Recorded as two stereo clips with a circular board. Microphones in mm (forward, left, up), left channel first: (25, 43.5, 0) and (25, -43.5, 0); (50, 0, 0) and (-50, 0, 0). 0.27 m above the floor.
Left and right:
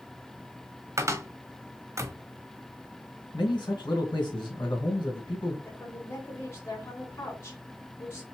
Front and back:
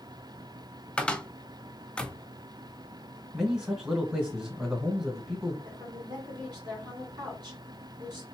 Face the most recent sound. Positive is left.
turn(degrees=140)